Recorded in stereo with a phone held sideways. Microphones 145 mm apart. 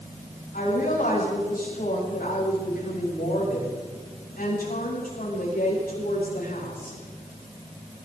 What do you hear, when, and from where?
0.5 s a woman speaking: 75° left (ahead or behind), 8 m